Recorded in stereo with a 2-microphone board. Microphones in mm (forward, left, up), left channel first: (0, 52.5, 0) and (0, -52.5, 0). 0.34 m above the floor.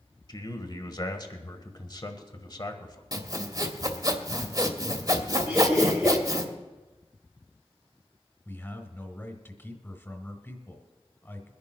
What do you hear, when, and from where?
0.3 s a man speaking: 40° left (ahead or behind), 1.3 m
3.1 s sawing: 40° right (ahead or behind), 1.2 m
5.5 s laughter: 10° right (ahead or behind), 7 m
8.4 s a man speaking: 20° left (ahead or behind), 1.7 m